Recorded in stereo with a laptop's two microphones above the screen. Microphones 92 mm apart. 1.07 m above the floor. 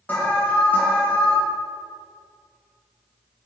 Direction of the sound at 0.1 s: 20° left (ahead or behind).